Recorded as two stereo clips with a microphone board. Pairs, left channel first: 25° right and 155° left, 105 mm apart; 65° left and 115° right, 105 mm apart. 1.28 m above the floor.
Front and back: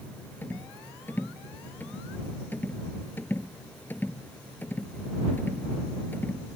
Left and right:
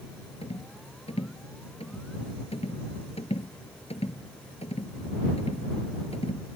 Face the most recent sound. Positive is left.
turn(degrees=50)